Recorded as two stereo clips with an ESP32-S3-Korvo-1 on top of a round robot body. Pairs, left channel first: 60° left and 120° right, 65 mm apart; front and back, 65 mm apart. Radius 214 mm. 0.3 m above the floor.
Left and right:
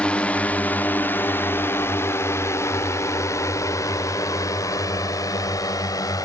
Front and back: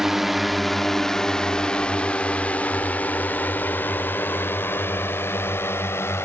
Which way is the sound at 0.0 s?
105° left.